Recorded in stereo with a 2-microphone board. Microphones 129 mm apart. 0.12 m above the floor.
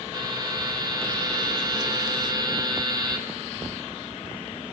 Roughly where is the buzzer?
Right.